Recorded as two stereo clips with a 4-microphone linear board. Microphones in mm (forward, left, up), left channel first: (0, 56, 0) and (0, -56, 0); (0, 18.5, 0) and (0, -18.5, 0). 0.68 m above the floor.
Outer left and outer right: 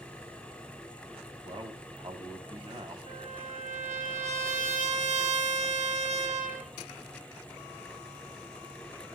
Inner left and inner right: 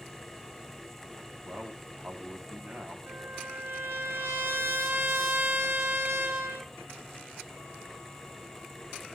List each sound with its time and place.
1.4 s a man speaking: 50° right (ahead or behind), 4.5 m
3.1 s a trumpet: 85° right, 3.5 m